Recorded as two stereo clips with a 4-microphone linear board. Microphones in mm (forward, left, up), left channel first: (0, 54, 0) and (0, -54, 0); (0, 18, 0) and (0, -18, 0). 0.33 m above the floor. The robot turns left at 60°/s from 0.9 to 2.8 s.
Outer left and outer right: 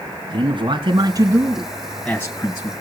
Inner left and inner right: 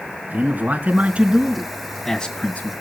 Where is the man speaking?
120° right, 2.5 m; by 2.7 s 130° left, 2.5 m.